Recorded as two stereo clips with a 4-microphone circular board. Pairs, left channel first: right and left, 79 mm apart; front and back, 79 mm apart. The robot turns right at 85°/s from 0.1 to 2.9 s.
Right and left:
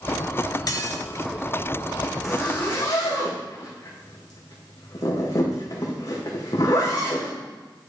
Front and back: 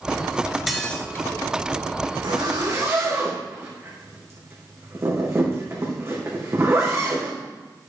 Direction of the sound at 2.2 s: 175° left.